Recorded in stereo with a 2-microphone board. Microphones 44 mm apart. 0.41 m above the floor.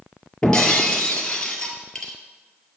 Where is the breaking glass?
15° left (ahead or behind), 1.7 m.